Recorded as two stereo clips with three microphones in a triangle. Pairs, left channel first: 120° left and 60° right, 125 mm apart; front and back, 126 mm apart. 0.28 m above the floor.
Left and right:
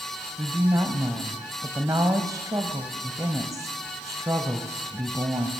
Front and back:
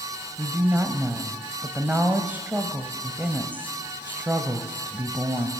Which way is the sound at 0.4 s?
110° right.